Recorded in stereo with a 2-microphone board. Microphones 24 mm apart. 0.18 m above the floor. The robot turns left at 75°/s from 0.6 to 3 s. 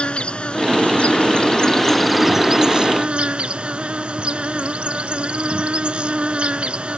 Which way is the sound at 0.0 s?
115° left.